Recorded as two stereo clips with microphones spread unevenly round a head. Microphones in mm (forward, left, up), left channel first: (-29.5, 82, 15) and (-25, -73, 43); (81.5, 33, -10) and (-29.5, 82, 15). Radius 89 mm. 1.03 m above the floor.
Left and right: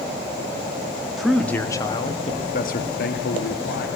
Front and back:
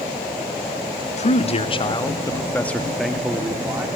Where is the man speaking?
Straight ahead, 1.8 m; by 3.9 s 85° left, 2.5 m.